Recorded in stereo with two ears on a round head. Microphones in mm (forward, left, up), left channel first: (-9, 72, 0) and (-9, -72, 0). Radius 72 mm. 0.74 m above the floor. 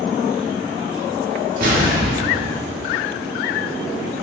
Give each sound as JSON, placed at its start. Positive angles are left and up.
{"t": 1.6, "sound": "an explosion", "side_deg": -60, "distance_m": 1.0}